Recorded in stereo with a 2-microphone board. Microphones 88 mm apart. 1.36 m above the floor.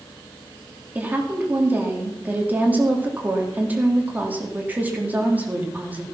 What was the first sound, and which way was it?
A woman speaking, 20° right (ahead or behind).